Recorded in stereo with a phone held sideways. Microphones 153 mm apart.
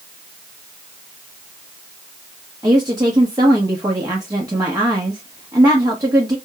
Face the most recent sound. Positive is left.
turn(degrees=-25)  # may be behind; listen again after turning